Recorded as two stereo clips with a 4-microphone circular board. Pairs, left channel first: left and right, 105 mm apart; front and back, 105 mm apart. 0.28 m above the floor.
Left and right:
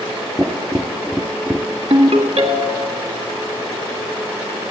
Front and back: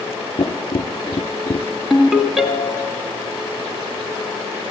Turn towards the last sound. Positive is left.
turn(degrees=-95)